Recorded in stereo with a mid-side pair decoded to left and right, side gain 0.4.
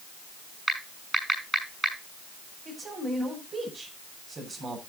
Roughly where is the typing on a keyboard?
Ahead.